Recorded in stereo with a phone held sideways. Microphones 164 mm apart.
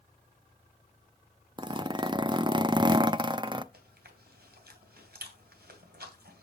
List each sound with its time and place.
1.6 s a zipper: 25° right (ahead or behind), 0.6 m
3.7 s chewing: 75° right (ahead or behind), 2.5 m